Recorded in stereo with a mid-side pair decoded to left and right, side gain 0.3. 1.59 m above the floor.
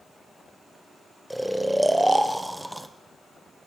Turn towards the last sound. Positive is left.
turn(degrees=-10)